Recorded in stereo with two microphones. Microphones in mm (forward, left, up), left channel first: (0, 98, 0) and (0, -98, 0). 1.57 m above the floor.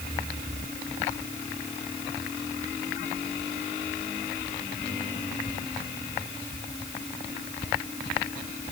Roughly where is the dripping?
I don't hear dripping.